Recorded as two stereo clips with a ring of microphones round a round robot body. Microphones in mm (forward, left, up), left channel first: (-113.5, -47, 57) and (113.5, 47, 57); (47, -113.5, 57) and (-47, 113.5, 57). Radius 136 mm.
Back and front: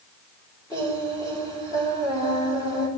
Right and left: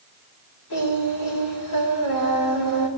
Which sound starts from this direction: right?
Singing, at 0.7 s.